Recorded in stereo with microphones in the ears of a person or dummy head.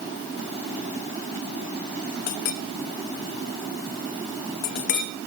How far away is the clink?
About 0.8 m.